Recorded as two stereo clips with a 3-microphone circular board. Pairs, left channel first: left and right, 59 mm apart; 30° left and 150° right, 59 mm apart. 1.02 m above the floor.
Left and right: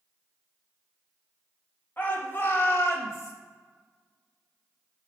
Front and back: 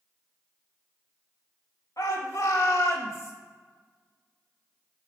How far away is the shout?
About 1.4 m.